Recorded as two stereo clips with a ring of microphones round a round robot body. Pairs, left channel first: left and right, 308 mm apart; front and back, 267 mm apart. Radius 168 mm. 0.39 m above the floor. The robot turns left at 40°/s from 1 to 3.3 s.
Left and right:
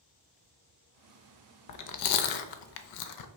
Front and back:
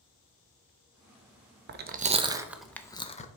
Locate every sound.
1.7 s chewing: 130° left, 0.6 m; by 3.3 s 65° left, 0.6 m